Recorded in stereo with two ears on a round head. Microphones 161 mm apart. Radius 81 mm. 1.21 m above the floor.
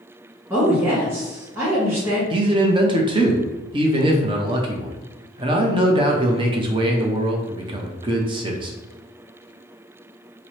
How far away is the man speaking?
About 0.6 m.